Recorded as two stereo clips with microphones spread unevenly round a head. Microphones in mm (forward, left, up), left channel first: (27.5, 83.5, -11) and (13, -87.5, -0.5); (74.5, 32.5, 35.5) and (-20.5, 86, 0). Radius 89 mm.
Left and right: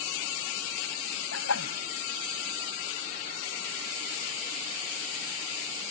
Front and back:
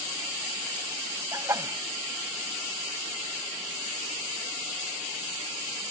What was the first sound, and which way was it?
A sneeze, 85° left.